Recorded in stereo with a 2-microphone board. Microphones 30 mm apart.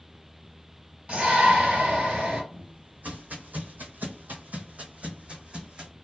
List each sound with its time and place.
1.1 s a shout: 40° right (ahead or behind), 1.8 m
2.5 s footsteps: 50° right (ahead or behind), 1.3 m; by 5.9 s 30° right (ahead or behind), 1.4 m